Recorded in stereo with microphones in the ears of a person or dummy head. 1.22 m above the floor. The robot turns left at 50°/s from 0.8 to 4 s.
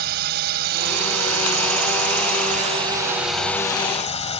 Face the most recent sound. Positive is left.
turn(degrees=145)